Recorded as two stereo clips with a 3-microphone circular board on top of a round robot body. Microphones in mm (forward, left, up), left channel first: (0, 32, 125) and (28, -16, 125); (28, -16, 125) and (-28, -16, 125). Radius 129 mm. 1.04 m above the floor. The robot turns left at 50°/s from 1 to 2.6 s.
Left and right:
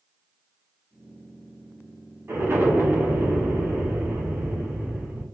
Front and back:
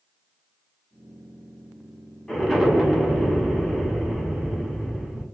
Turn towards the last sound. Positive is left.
turn(degrees=-95)